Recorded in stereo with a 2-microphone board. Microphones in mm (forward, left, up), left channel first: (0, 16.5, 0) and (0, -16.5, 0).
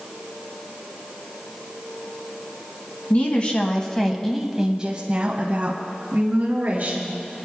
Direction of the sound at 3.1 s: 40° left (ahead or behind).